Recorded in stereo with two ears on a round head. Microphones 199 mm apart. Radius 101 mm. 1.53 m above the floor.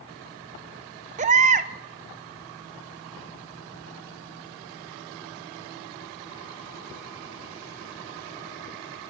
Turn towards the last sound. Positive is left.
turn(degrees=-30)  # may be behind; listen again after turning